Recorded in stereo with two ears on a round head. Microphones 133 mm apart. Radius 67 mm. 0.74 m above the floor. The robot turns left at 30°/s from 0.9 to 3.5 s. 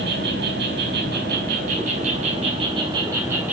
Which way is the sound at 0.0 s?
90° right.